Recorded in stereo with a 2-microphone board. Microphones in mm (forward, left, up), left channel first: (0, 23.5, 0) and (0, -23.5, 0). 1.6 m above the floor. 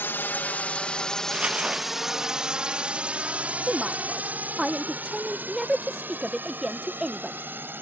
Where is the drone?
55° left (ahead or behind); by 7.8 s 45° right (ahead or behind).